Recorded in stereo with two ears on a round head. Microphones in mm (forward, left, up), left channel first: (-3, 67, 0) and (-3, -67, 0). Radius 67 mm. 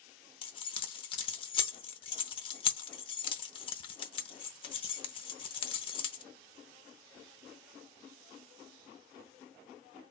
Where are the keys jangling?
35° left (ahead or behind), 0.7 m.